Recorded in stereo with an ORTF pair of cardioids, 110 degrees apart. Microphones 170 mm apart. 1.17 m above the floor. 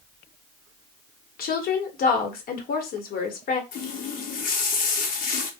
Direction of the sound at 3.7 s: 55° left.